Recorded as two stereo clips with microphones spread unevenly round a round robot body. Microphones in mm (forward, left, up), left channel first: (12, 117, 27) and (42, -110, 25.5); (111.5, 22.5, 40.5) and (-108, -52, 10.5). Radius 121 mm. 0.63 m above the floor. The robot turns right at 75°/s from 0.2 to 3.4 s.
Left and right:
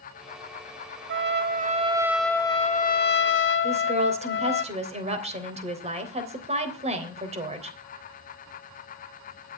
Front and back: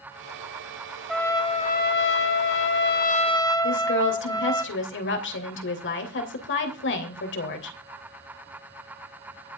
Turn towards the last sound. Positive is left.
turn(degrees=-20)